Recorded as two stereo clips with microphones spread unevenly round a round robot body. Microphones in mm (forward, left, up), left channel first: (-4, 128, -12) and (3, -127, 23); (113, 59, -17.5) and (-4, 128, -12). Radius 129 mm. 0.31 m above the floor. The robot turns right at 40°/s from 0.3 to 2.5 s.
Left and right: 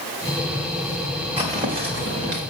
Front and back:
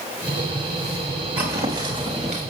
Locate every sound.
1.4 s footsteps: 160° right, 3.5 m; by 2.4 s 120° right, 3 m